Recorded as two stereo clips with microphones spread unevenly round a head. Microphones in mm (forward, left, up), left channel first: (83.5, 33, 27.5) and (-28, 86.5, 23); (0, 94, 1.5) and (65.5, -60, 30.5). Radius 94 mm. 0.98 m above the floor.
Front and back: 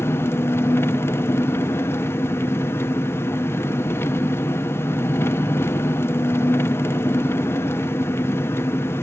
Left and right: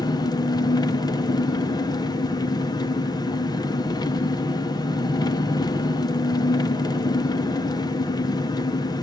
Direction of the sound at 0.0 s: 45° left.